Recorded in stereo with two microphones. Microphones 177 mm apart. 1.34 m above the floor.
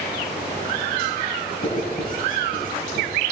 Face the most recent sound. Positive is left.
turn(degrees=55)  # may be behind; listen again after turning